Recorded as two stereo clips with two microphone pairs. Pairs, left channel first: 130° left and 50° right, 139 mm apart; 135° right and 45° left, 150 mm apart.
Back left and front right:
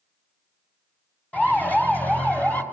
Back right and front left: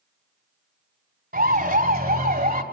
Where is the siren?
50° left, 3.5 m.